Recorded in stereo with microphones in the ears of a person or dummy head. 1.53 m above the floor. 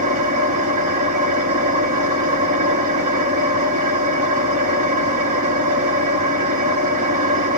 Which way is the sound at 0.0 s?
40° right (ahead or behind).